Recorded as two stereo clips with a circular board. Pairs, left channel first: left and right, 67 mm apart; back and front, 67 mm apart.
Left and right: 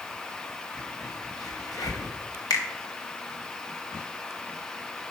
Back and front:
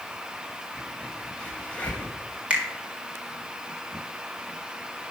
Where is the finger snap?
70° left, 1.9 m.